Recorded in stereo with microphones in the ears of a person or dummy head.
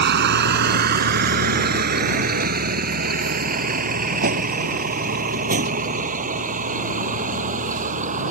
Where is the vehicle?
55° right (ahead or behind); by 8.3 s 40° right (ahead or behind).